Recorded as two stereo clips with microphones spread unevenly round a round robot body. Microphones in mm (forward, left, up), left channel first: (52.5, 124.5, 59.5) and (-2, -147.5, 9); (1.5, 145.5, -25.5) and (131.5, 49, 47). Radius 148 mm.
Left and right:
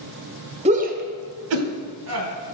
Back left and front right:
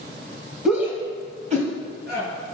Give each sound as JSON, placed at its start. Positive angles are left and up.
{"t": 0.7, "sound": "a shout", "azimuth_deg": -150, "distance_m": 1.4}